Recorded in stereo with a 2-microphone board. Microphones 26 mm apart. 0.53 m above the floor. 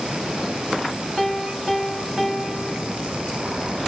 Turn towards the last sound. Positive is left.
turn(degrees=-5)  # may be behind; listen again after turning